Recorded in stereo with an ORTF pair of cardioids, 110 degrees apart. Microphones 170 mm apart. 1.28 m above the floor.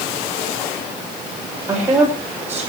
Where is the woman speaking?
15° right, 6 m.